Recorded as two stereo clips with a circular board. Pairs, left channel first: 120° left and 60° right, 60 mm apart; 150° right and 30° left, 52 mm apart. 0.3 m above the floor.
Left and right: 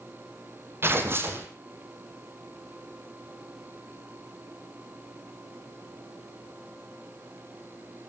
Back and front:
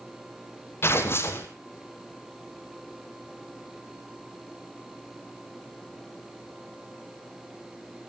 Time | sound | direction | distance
0.8 | tearing paper | 110° right | 2.5 m